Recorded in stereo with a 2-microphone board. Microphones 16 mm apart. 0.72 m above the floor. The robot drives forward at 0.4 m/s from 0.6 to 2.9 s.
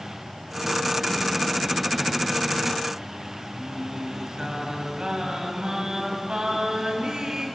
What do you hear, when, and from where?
3.5 s singing: 60° right (ahead or behind), 3.5 m